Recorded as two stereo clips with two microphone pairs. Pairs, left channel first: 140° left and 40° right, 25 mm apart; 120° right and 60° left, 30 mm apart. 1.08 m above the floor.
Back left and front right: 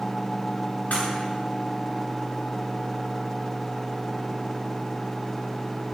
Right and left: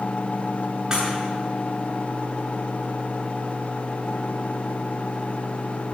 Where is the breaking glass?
130° left, 8.5 m.